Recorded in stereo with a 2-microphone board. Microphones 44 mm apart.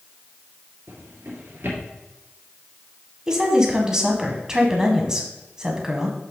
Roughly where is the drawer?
Right.